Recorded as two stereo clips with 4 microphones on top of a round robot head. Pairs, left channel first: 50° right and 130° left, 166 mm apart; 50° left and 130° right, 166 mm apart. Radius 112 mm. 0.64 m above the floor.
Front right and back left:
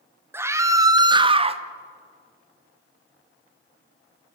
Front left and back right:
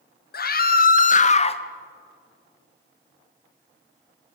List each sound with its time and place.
0.3 s a scream: 55° left, 2 m; by 1.6 s 95° left, 1.4 m